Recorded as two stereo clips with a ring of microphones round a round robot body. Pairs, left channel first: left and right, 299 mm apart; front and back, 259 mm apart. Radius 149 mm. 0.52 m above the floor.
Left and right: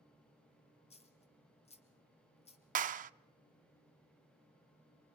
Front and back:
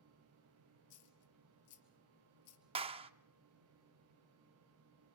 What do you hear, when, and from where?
0.9 s a dropped coin: 20° left, 3 m
2.8 s a clap: 130° right, 0.5 m